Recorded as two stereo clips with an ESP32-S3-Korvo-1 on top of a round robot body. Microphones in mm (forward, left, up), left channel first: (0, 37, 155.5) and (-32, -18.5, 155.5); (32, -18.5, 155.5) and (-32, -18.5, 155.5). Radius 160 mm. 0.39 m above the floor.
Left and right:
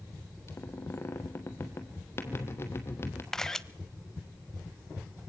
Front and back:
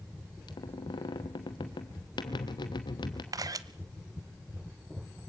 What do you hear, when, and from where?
0.5 s a squeak: 5° left, 1.0 m
3.3 s a camera shutter: 145° left, 0.5 m